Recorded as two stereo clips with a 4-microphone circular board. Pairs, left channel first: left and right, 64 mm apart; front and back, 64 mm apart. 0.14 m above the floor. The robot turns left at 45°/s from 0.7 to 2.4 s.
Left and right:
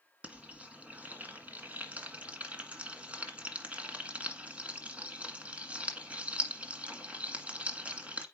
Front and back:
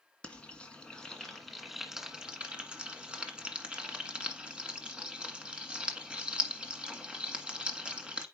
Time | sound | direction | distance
0.2 | frying | 50° right | 1.5 m